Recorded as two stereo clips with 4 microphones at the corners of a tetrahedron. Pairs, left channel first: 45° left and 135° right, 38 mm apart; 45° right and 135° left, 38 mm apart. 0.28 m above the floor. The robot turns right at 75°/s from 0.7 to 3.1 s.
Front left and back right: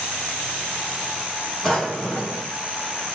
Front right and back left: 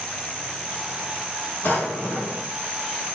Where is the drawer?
35° right, 2.5 m; by 2.5 s 30° left, 2.5 m.